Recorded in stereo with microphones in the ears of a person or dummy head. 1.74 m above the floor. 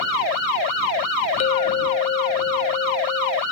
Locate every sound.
1.4 s a clink: 25° left (ahead or behind)